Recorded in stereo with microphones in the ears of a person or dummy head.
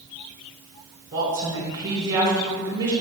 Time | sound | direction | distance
1.1 | a woman speaking | 20° right (ahead or behind) | 3 m